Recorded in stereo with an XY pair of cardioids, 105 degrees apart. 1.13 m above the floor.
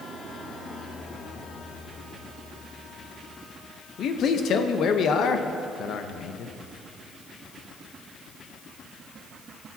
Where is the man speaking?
65° left, 0.9 m.